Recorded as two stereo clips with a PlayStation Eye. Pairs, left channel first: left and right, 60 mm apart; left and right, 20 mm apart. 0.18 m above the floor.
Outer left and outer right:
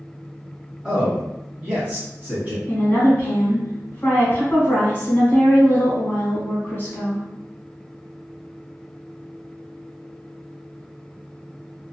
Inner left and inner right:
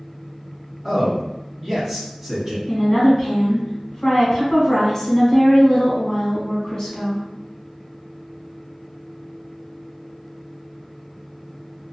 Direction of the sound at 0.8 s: 15° right (ahead or behind).